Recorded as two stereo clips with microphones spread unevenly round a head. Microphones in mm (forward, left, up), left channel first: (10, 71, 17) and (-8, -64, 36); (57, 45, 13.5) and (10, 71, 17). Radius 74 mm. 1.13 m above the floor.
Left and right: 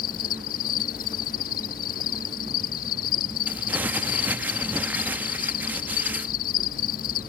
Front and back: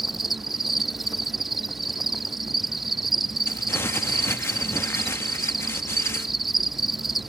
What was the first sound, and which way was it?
An insect, 65° left.